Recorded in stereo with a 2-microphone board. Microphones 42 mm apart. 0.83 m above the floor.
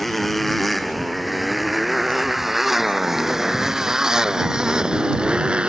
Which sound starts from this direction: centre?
A motorcycle, at 0.0 s.